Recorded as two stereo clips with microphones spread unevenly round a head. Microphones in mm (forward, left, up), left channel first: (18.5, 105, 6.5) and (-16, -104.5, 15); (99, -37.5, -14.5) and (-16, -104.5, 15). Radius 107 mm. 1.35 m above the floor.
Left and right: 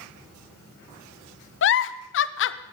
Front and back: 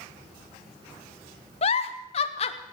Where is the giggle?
65° left, 0.7 m.